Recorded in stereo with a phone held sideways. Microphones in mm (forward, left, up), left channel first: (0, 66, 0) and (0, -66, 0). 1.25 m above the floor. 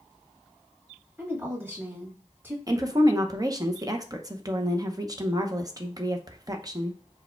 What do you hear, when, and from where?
1.2 s a woman speaking: 15° right (ahead or behind), 2 m
2.7 s a woman speaking: 30° right (ahead or behind), 0.7 m